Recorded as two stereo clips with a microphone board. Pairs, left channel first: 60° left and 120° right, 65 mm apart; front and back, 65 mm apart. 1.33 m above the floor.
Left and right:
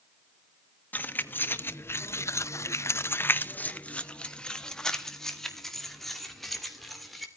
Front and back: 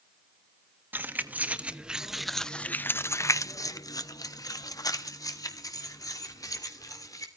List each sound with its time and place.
0.9 s keys jangling: 125° left, 1.3 m; by 7.3 s 30° right, 3 m